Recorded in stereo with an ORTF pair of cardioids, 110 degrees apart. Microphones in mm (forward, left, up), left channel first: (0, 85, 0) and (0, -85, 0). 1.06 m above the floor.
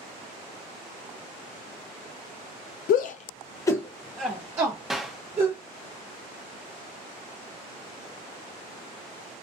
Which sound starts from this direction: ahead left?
A shout, at 2.9 s.